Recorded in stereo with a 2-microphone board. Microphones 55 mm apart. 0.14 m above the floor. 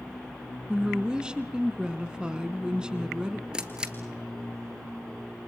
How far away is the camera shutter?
About 2 m.